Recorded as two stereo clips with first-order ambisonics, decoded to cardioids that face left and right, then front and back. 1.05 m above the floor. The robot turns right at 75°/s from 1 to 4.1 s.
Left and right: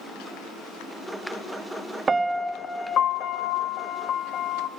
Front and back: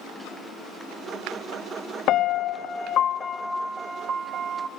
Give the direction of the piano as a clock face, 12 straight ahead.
1 o'clock.